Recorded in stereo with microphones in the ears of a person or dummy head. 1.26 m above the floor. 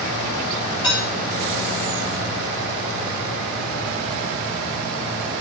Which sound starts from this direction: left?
Dishes clattering, at 0.8 s.